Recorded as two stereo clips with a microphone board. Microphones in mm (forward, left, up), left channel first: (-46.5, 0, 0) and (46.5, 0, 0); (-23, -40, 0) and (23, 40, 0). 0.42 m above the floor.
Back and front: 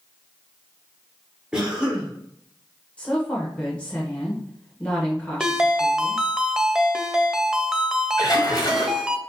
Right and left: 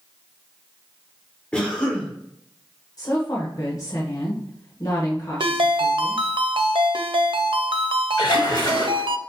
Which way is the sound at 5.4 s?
85° left.